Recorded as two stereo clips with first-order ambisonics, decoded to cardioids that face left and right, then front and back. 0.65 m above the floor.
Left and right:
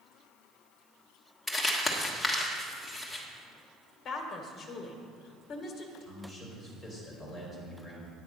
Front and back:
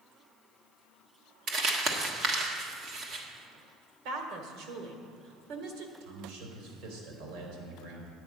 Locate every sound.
1.5 s crumpling: 165° left, 1.4 m
4.0 s a woman speaking: 150° left, 1.8 m
6.0 s a man speaking: 170° left, 3.5 m